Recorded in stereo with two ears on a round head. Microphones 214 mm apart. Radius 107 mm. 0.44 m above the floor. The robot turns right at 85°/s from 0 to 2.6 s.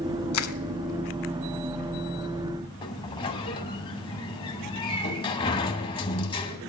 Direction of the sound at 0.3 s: 65° left (ahead or behind).